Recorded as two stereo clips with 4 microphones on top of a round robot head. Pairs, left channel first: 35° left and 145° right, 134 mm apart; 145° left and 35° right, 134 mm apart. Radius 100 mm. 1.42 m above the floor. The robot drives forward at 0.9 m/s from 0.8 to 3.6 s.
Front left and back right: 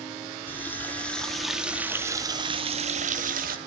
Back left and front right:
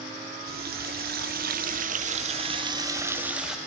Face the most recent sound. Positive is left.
turn(degrees=-125)